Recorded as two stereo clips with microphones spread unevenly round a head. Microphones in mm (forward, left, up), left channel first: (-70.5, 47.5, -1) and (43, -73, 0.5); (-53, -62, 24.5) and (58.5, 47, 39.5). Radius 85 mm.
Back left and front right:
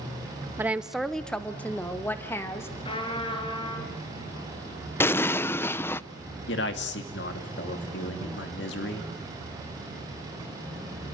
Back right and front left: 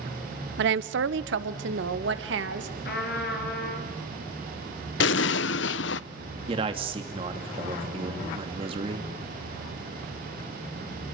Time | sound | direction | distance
0.6 | a woman speaking | 30° left | 0.8 m
2.9 | a trumpet | 170° right | 4.5 m
5.0 | an explosion | 150° right | 0.6 m
6.5 | a man speaking | 105° left | 2.5 m